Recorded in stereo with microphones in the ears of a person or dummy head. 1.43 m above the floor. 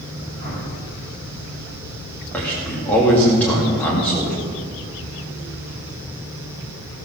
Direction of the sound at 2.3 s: 10° left (ahead or behind).